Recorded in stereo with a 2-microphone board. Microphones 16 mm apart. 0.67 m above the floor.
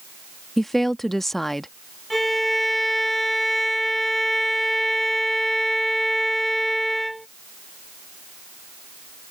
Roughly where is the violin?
Centre.